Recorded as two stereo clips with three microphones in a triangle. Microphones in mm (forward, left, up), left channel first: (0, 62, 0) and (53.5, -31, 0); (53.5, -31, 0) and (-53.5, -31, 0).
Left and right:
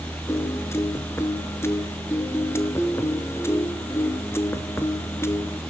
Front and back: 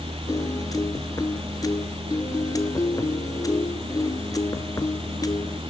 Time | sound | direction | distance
0.3 | a piano | 55° left | 0.9 m